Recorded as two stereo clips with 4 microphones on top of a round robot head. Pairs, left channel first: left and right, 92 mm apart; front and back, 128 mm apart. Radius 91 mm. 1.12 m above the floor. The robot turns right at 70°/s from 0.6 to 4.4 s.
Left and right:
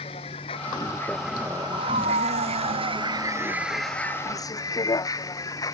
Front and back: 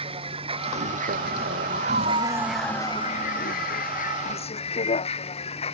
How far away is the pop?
No pop in this recording.